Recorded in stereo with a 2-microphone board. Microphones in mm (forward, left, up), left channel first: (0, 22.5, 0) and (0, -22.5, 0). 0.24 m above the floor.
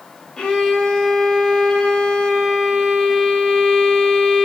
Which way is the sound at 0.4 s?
15° left (ahead or behind).